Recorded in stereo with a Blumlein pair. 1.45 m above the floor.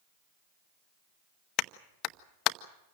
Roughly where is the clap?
Ahead left.